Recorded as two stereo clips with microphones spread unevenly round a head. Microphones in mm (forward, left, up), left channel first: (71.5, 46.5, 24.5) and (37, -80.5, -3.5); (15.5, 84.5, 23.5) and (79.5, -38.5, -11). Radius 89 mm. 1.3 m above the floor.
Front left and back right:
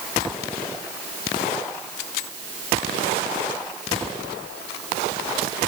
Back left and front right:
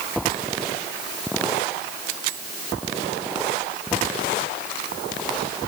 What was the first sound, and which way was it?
Only background noise.